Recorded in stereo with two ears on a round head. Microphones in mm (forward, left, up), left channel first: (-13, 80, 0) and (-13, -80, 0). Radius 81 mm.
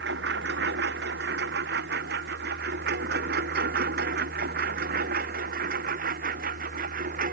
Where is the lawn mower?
75° right (ahead or behind); by 7.3 s 55° right (ahead or behind).